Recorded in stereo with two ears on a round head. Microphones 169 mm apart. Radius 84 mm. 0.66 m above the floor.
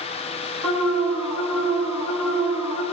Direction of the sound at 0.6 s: 10° right (ahead or behind).